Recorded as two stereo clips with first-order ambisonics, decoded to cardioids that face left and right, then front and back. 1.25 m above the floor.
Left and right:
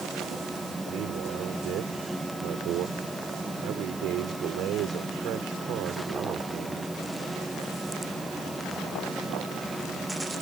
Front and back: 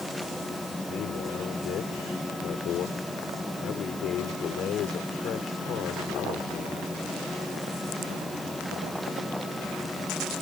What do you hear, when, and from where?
0.9 s a man speaking: 50° right